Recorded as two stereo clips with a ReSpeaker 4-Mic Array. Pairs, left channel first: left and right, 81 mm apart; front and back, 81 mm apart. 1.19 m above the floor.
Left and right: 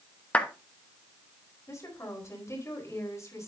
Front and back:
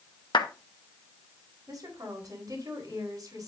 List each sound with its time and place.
0.3 s a clap: 15° left, 1.0 m
1.7 s a woman speaking: 140° left, 4 m